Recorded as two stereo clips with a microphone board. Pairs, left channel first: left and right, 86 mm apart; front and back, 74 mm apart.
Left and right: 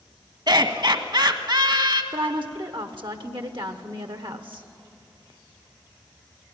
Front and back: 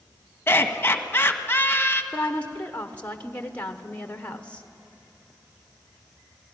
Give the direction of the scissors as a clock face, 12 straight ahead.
I don't hear scissors.